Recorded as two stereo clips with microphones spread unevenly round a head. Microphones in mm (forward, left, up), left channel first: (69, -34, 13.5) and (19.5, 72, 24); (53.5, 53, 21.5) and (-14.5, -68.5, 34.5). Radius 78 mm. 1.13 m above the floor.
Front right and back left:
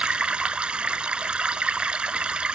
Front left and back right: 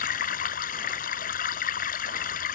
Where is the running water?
35° left.